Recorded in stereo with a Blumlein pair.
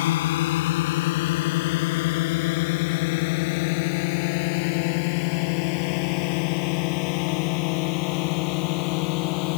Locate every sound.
0.0 s a drone: 55° left; by 9.6 s 45° left